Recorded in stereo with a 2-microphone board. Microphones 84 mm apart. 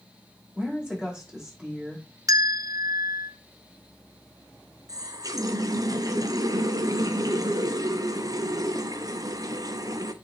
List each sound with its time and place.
0.6 s a woman speaking: 15° right (ahead or behind), 5 m
2.3 s a bell: 45° right (ahead or behind), 0.8 m
4.9 s a running tap: 45° right (ahead or behind), 0.7 m